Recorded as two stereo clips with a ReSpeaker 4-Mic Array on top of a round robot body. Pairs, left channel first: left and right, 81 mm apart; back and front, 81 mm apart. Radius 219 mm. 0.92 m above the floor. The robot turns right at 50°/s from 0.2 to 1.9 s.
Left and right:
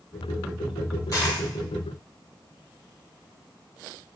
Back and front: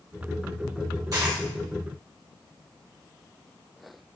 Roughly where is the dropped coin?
Ahead left.